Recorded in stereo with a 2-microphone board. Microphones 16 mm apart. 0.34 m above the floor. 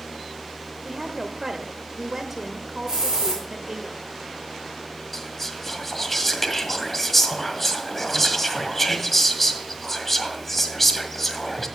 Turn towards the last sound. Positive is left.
turn(degrees=10)  # may be behind; listen again after turning